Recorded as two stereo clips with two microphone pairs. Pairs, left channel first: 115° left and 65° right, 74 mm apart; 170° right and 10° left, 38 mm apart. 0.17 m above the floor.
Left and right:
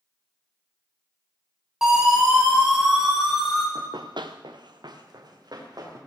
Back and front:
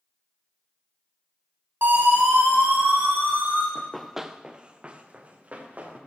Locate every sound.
1.8 s a siren: 15° left, 8.5 m; by 3.6 s 25° left, 10.5 m
3.8 s running footsteps: 95° right, 1.0 m; by 6.0 s 35° right, 3.5 m